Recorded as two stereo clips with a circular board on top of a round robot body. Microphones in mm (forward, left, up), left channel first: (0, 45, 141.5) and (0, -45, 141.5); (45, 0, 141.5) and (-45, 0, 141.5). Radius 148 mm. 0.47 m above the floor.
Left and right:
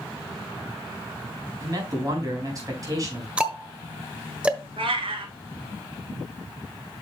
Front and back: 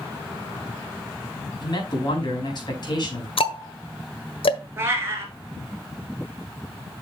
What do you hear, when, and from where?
1.6 s a man speaking: 40° right, 5 m
3.4 s ticking: 10° right, 1.5 m
4.8 s a cat meowing: 115° right, 1.6 m